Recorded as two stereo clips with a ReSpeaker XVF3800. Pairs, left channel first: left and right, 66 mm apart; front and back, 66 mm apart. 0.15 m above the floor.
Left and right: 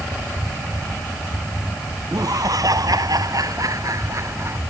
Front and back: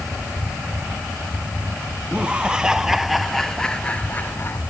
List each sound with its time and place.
2.1 s laughter: 110° right; by 4.6 s 50° right